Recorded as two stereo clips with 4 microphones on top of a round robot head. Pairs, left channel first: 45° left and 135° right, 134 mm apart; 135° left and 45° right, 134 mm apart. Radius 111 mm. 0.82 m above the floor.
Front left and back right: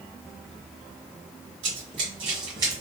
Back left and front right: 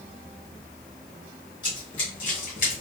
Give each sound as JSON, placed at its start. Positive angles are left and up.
{"t": 1.6, "sound": "running footsteps", "azimuth_deg": -165, "distance_m": 1.4}